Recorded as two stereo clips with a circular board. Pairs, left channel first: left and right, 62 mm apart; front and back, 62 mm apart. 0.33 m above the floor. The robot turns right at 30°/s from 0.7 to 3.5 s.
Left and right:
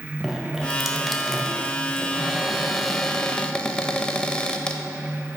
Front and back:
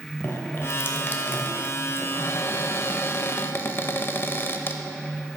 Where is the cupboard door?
20° right, 0.6 m; by 4.8 s 20° left, 0.6 m.